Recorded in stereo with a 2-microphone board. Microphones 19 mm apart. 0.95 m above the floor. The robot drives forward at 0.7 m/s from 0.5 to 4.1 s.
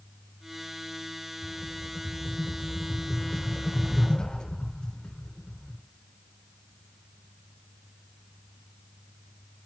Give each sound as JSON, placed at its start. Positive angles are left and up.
{"t": 1.4, "sound": "a rattle", "side_deg": 75, "distance_m": 3.0}